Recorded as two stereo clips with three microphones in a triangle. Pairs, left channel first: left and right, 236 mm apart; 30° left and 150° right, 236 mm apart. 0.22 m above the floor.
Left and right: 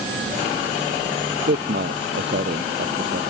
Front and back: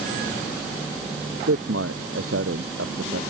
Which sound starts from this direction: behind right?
A man speaking, at 1.5 s.